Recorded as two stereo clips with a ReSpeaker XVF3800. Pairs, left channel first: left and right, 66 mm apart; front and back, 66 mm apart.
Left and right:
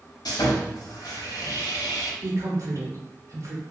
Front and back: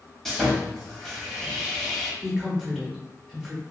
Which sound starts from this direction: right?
A woman speaking, at 2.2 s.